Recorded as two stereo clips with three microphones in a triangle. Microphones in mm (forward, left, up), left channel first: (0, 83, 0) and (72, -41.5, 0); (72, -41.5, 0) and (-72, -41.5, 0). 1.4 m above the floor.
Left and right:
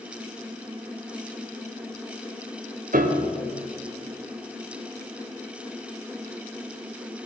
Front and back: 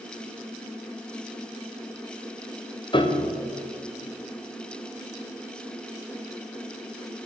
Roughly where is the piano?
Ahead right.